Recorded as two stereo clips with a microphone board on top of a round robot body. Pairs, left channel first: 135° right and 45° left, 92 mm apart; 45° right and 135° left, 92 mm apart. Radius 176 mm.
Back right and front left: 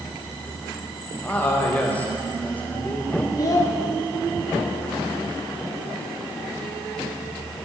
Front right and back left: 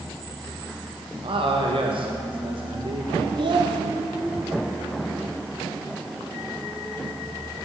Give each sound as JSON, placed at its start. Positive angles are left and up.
{"t": 1.2, "sound": "a man speaking", "azimuth_deg": 150, "distance_m": 1.5}
{"t": 3.4, "sound": "a child speaking", "azimuth_deg": 170, "distance_m": 0.7}